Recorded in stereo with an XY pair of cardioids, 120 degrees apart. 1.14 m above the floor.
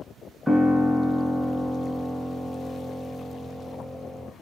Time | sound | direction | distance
0.5 | a piano | 5° left | 0.5 m